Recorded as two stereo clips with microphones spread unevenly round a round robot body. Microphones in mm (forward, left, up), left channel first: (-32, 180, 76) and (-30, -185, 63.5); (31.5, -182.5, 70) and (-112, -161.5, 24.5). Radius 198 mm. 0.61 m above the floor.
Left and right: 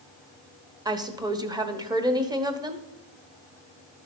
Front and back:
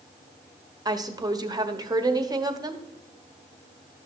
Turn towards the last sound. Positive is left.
turn(degrees=-165)